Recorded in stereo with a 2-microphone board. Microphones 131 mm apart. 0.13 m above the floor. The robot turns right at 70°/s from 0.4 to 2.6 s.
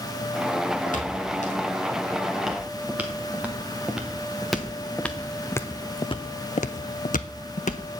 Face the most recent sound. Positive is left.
turn(degrees=65)  # may be behind; listen again after turning